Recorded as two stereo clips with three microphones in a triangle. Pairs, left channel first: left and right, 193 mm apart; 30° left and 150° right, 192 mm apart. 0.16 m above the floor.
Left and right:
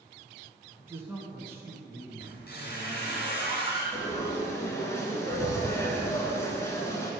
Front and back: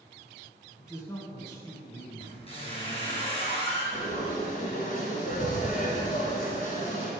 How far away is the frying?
About 1.2 m.